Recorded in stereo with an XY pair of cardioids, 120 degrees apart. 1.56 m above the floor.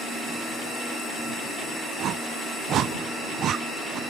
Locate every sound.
2.0 s a whoosh: 60° right